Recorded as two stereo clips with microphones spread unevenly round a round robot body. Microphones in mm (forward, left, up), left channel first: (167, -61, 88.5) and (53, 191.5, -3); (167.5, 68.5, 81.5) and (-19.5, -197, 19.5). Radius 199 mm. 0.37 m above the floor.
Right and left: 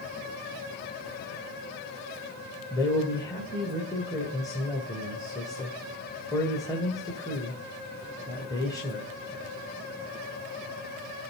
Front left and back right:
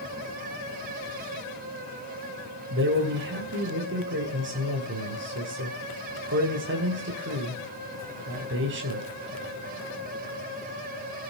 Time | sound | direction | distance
2.7 | a man speaking | 155° right | 2 m